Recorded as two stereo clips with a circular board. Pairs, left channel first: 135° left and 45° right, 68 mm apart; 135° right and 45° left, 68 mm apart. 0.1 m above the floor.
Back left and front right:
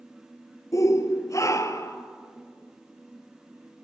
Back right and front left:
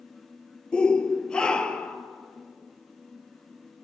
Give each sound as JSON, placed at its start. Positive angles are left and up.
{"t": 0.7, "sound": "a shout", "azimuth_deg": 150, "distance_m": 1.7}